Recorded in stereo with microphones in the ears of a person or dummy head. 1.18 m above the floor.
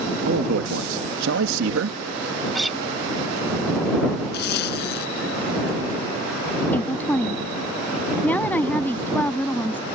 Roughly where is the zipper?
Left.